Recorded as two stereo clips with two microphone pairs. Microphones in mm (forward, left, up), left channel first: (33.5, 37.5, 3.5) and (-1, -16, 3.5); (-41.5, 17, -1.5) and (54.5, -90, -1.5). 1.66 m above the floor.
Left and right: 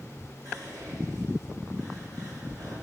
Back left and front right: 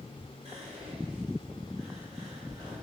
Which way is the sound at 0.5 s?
95° right.